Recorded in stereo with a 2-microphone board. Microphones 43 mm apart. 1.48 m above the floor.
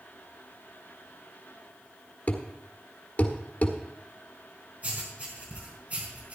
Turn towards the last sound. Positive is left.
turn(degrees=-35)  # may be behind; listen again after turning